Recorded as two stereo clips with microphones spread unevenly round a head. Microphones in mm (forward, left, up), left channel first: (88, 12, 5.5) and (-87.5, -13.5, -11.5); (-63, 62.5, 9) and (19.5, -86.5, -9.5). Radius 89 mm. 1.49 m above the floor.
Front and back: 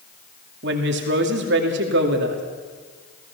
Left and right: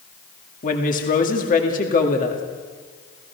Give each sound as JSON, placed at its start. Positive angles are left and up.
{"t": 0.6, "sound": "a woman speaking", "azimuth_deg": 160, "distance_m": 2.5}